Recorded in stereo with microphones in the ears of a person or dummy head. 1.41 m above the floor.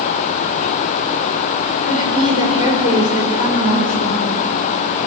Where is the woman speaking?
45° left (ahead or behind), 5 m.